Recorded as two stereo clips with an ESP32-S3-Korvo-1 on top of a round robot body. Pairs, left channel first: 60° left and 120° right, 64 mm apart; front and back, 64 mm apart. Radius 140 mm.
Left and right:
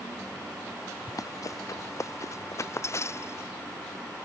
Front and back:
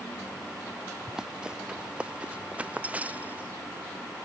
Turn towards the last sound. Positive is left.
turn(degrees=110)